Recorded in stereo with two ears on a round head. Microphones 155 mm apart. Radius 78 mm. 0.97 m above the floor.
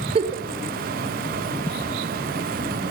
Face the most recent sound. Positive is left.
turn(degrees=-35)  # may be behind; listen again after turning